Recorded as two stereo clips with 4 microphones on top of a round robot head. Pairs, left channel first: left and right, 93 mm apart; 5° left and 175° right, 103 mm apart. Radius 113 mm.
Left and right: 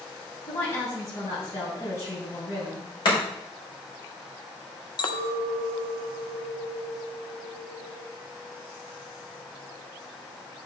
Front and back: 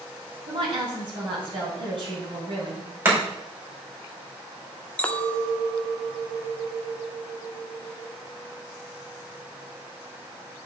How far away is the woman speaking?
About 3.5 m.